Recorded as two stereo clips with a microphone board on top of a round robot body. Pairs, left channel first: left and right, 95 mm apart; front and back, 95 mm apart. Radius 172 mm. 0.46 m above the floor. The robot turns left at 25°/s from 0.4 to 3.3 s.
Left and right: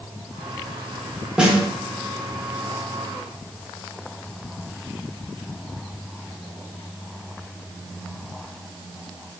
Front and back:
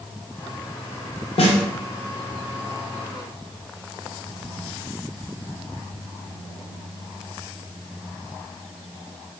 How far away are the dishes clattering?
I don't hear dishes clattering.